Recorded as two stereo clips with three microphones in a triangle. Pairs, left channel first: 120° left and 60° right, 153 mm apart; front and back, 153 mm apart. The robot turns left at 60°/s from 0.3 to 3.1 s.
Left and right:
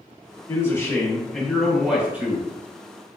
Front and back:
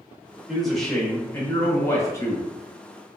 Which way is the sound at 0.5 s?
100° left.